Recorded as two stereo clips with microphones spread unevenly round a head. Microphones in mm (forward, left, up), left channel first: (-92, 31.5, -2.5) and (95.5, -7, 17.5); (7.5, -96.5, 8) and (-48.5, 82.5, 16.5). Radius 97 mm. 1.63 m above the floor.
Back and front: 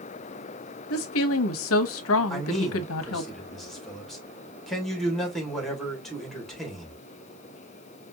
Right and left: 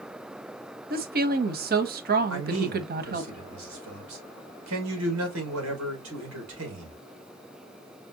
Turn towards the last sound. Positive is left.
turn(degrees=80)